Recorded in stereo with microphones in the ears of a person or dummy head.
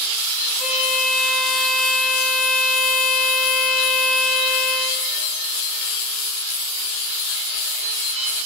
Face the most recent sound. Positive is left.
turn(degrees=-45)  # may be behind; listen again after turning